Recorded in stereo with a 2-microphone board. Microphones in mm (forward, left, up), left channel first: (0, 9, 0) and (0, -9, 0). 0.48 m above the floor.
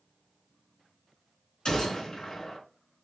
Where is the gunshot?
35° left (ahead or behind), 3 m.